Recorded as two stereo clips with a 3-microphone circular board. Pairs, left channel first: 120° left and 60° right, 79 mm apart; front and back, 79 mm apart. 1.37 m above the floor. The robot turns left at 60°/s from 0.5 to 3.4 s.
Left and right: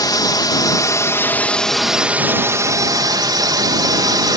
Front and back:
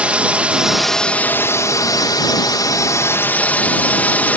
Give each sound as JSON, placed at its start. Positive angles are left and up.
{"t": 0.0, "sound": "a drone", "azimuth_deg": 110}